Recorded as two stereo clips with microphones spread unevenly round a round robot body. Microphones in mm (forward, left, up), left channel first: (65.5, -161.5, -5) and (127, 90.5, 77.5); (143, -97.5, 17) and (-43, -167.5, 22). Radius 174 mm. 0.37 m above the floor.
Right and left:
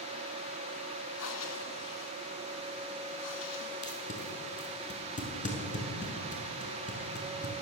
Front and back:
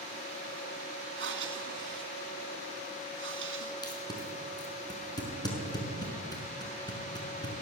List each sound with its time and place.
1.2 s breathing: 145° right, 2.5 m
3.8 s tape being pulled: 50° right, 6 m